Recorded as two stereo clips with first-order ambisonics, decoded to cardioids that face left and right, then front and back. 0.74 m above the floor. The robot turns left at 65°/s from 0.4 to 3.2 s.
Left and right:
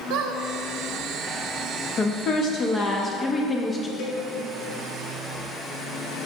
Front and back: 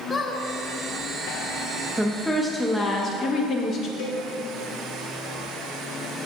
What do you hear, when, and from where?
0.1 s a squeak: 80° right, 0.7 m; by 0.4 s 85° right, 0.7 m
2.0 s a woman speaking: 105° left, 0.7 m; by 3.9 s 25° left, 0.7 m
4.0 s a cowbell: 40° left, 1.4 m